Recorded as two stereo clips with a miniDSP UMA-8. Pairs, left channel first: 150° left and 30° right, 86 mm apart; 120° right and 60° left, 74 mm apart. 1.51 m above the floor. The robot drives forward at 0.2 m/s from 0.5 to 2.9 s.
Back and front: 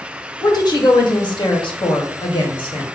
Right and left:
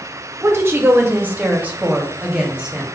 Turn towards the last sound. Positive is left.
turn(degrees=140)